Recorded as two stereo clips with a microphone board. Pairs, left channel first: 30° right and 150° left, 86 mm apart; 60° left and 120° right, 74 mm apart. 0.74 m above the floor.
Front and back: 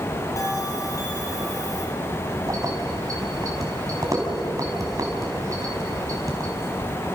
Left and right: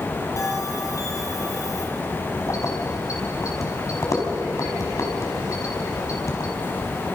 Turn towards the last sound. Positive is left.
turn(degrees=100)